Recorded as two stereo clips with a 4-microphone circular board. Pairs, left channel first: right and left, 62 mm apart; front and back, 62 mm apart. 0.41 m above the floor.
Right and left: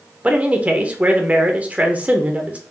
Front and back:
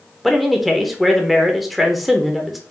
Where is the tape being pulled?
I don't hear tape being pulled.